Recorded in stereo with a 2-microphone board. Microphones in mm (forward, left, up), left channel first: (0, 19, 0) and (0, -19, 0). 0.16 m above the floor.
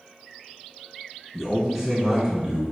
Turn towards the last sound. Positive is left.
turn(degrees=-20)  # may be behind; listen again after turning